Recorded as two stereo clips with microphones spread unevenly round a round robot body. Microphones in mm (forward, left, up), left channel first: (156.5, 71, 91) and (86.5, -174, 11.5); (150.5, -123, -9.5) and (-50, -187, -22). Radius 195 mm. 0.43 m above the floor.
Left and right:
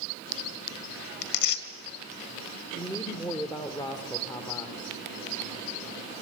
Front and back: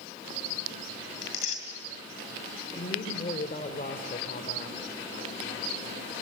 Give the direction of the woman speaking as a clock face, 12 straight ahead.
12 o'clock.